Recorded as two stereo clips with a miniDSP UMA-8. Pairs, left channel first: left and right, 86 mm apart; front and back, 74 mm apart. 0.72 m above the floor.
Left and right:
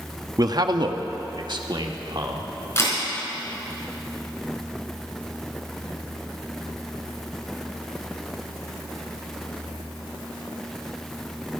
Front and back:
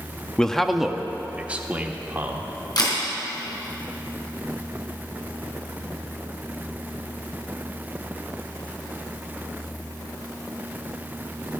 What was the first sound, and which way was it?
A man speaking, 75° right.